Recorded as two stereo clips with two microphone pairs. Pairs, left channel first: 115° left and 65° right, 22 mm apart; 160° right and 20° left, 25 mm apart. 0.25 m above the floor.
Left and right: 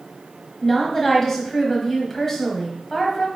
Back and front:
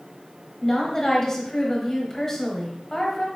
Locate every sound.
0.6 s a woman speaking: 170° left, 1.0 m